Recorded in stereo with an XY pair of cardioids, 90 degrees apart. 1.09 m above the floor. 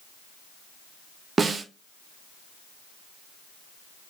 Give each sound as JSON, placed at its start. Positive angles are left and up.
{"t": 1.4, "sound": "a snare drum", "azimuth_deg": -45, "distance_m": 0.7}